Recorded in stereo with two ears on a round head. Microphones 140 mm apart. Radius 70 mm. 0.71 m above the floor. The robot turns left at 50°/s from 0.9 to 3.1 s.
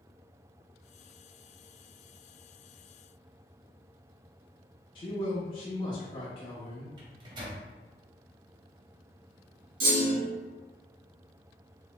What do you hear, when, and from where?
5.0 s a man speaking: 35° left (ahead or behind), 0.6 m
7.0 s a microwave: 30° right (ahead or behind), 0.7 m
9.8 s a clunk: 75° right (ahead or behind), 1.7 m